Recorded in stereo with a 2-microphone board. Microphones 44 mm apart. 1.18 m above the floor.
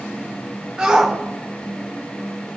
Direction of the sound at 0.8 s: 15° right (ahead or behind).